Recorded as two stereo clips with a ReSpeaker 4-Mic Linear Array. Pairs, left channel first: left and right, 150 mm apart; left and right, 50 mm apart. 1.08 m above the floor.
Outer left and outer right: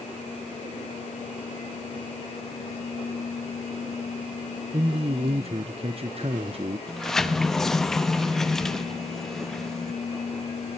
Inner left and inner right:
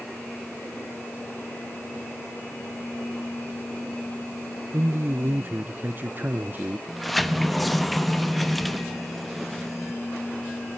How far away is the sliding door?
About 0.8 m.